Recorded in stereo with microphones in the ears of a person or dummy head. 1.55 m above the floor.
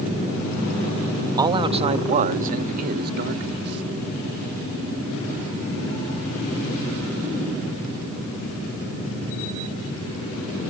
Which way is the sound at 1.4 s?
20° right (ahead or behind).